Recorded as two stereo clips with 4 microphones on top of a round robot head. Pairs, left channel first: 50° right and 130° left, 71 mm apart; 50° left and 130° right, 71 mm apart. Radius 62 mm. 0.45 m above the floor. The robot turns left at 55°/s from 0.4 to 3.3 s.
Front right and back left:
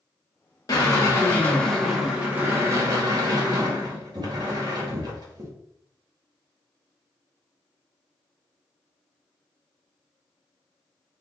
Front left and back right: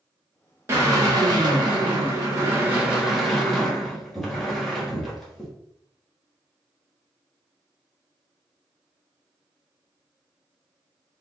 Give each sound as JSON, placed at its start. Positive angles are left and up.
{"t": 0.7, "sound": "a drill", "azimuth_deg": -80, "distance_m": 1.4}